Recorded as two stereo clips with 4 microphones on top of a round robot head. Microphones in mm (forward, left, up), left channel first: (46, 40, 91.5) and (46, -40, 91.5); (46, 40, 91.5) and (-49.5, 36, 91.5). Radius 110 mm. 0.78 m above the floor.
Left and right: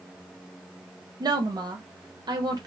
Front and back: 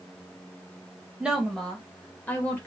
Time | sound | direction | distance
1.2 | a woman speaking | 100° right | 1.2 m